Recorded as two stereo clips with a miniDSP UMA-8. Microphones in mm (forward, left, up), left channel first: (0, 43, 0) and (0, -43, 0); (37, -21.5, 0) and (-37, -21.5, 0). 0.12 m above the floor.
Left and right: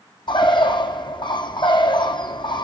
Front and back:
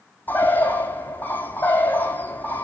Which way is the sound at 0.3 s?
65° left.